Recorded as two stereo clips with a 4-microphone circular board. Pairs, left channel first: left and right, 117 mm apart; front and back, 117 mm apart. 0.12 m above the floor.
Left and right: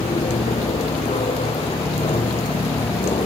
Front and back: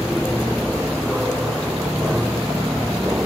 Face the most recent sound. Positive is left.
turn(degrees=110)